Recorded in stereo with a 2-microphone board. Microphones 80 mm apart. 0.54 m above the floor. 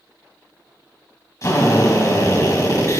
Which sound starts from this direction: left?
A drill, at 1.4 s.